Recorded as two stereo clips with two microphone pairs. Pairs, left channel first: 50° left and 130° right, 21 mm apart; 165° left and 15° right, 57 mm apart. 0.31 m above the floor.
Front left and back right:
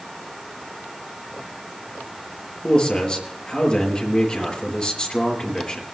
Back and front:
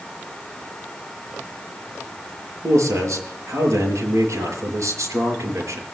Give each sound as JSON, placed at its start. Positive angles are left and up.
{"t": 2.6, "sound": "a man speaking", "azimuth_deg": 0, "distance_m": 6.0}